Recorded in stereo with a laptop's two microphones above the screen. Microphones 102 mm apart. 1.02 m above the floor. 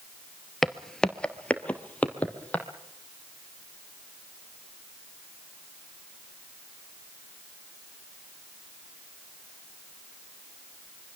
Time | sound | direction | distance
0.6 | footsteps | centre (ahead or behind) | 1.0 m